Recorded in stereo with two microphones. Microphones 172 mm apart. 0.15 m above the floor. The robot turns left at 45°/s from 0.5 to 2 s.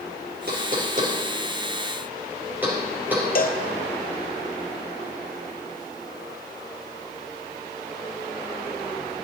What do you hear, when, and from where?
0.5 s knocking: 65° right (ahead or behind), 3 m; by 3.2 s 10° right (ahead or behind), 3 m
3.4 s a cowbell: 60° left (ahead or behind), 1.0 m